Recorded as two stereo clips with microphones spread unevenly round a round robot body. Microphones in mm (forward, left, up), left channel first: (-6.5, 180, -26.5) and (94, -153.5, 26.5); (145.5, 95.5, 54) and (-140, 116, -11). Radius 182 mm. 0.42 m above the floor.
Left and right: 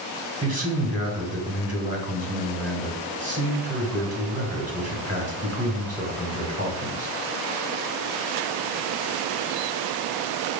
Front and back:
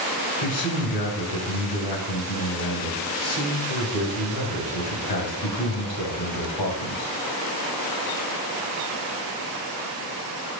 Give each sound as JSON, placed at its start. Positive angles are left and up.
{"t": 0.4, "sound": "a man speaking", "azimuth_deg": 0, "distance_m": 2.0}